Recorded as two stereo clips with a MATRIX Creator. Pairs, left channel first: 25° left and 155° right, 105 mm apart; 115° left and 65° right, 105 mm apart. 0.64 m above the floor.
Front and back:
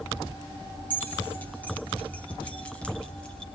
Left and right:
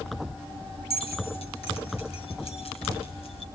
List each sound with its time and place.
0.9 s keys jangling: 95° left, 4.5 m; by 3.5 s 105° left, 2.5 m